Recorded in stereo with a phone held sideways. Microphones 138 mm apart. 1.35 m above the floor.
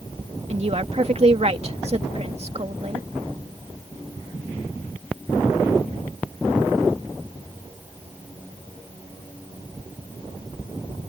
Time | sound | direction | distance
0.5 | a woman speaking | 50° right (ahead or behind) | ?